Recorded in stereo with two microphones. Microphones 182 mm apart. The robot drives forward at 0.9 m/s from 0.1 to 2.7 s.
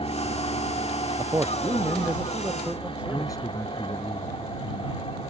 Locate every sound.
0.0 s an aircraft: 30° left (ahead or behind)
1.2 s a man speaking: 15° right (ahead or behind); by 3.4 s 5° right (ahead or behind)
3.1 s a man speaking: 20° left (ahead or behind)